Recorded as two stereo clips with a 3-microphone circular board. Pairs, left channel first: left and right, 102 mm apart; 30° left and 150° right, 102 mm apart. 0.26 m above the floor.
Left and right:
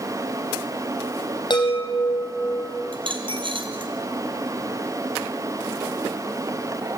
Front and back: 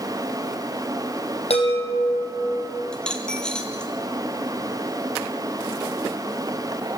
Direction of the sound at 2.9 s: 55° right.